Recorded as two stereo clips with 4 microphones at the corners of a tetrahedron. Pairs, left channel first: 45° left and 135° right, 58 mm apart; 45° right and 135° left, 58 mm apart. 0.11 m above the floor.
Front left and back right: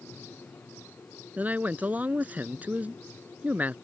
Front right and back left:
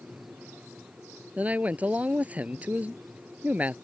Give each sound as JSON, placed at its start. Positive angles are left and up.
{"t": 1.4, "sound": "a man speaking", "azimuth_deg": -175}